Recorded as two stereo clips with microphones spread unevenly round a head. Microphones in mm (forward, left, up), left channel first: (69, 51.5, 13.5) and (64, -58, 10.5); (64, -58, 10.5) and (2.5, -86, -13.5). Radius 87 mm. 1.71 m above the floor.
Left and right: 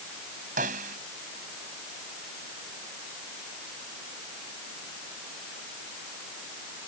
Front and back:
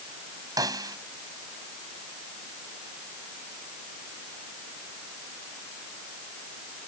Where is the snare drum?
125° right.